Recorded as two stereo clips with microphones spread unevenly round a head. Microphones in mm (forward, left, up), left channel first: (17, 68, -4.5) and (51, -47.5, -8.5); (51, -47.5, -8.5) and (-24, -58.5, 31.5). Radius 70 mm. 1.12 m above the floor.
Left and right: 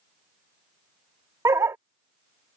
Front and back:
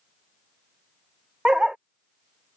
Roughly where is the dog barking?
Behind right.